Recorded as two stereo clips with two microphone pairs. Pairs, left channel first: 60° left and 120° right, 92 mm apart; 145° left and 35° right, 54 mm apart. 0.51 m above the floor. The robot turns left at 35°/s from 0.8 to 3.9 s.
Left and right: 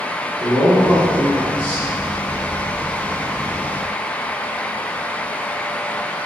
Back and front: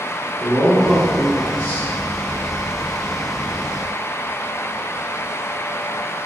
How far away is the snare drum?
No snare drum in this recording.